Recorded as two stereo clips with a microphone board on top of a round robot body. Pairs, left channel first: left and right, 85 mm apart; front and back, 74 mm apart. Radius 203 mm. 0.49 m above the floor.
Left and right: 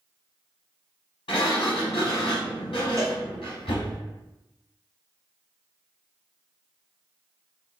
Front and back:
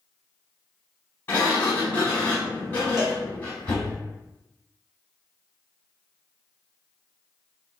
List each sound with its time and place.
1.3 s a sliding door: 65° left, 0.7 m
3.0 s a cowbell: 145° right, 1.0 m